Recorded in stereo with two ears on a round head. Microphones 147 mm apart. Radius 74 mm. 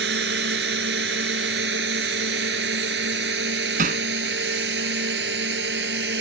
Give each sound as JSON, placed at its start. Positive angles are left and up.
{"t": 0.0, "sound": "a drone", "side_deg": -75}
{"t": 3.8, "sound": "hammering", "side_deg": -55}